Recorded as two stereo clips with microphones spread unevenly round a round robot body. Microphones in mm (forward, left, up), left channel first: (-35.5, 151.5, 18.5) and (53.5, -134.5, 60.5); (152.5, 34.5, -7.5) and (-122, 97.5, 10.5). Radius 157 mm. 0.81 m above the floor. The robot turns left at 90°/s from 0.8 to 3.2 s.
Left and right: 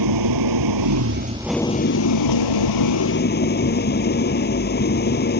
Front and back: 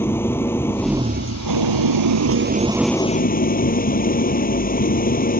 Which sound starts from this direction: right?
An engine running, at 0.0 s.